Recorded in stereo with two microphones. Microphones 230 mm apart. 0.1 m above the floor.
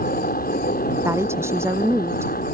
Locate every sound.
0.0 s a helicopter: 40° left (ahead or behind)
1.1 s a woman speaking: 10° right (ahead or behind)